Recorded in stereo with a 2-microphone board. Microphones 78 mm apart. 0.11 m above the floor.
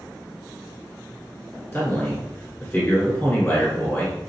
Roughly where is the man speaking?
Left.